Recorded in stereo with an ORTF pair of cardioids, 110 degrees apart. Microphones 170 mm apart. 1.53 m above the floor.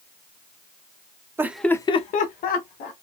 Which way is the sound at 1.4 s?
15° right.